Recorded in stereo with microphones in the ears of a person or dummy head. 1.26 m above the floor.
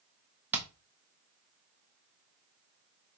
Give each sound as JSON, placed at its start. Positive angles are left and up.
{"t": 0.5, "sound": "hammering", "side_deg": -10, "distance_m": 1.0}